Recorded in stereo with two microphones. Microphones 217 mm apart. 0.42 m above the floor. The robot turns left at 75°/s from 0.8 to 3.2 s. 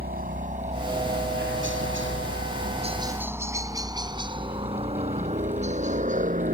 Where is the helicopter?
45° right (ahead or behind); by 6.5 s 35° right (ahead or behind).